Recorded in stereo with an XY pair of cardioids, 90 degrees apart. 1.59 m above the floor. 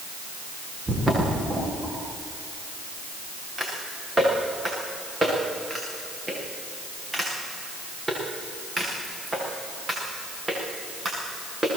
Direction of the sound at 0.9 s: 20° right.